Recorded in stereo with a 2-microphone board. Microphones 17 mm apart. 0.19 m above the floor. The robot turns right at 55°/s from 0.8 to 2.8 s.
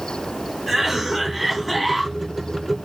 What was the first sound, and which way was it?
A cough, 45° right.